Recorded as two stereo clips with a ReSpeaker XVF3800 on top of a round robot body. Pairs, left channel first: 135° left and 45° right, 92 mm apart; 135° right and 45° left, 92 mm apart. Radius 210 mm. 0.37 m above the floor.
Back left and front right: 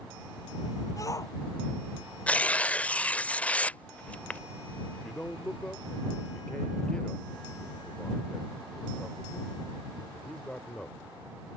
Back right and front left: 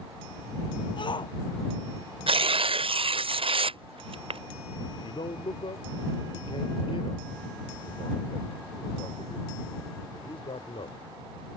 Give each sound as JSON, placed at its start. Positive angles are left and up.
{"t": 1.0, "sound": "a shout", "azimuth_deg": -170}
{"t": 2.3, "sound": "tearing paper", "azimuth_deg": 60}
{"t": 4.9, "sound": "a man speaking", "azimuth_deg": -145}